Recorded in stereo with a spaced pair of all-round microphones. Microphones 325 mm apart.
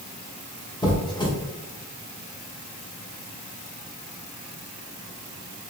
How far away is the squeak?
About 0.6 m.